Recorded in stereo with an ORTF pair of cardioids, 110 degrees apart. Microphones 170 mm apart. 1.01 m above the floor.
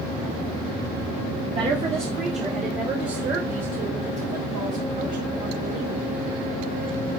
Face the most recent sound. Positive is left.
turn(degrees=-50)